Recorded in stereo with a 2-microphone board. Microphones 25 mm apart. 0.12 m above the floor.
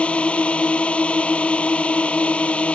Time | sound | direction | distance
0.0 | a drone | 60° left (ahead or behind) | ?